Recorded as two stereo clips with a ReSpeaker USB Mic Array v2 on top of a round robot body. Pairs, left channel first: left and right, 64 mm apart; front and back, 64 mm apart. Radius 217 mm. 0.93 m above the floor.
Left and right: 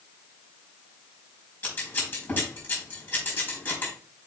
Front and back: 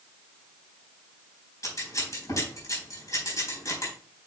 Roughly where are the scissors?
Ahead left.